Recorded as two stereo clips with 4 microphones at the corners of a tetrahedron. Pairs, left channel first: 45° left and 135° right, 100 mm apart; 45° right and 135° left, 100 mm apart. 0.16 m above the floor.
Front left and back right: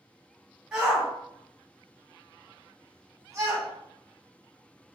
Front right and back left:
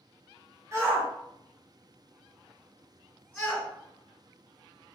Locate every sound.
0.7 s a shout: 145° left, 1.9 m; by 3.7 s 115° right, 1.9 m